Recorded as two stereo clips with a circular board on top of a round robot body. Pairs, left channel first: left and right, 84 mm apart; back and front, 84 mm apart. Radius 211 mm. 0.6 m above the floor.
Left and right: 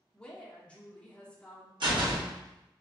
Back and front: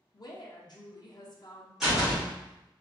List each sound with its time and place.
0.1 s a woman speaking: 165° left, 0.8 m
1.8 s a door slam: 85° right, 1.5 m